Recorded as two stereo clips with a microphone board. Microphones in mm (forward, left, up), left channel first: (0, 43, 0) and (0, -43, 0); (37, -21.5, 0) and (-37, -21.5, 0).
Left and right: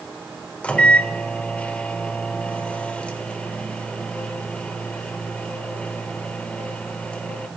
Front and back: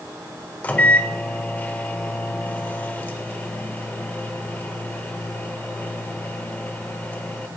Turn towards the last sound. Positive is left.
turn(degrees=35)